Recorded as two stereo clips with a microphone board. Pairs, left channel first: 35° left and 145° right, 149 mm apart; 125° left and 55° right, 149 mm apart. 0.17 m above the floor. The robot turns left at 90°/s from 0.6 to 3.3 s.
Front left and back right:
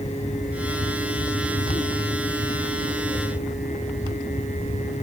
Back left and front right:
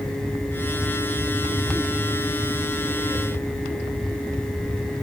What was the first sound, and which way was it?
Only background noise.